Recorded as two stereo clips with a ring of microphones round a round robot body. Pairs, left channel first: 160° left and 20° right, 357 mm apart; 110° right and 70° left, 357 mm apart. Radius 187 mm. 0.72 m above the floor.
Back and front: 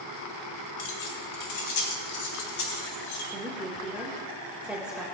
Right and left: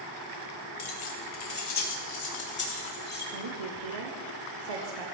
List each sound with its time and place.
0.8 s keys jangling: 160° right, 2.5 m; by 3.2 s straight behind, 5.5 m
3.3 s a woman speaking: 65° left, 2.5 m